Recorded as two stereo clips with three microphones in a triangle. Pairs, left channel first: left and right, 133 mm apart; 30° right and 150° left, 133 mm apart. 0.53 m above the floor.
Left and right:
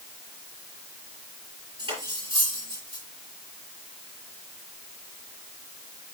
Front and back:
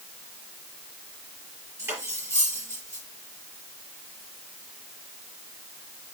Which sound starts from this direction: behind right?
Cutlery clinking, at 1.8 s.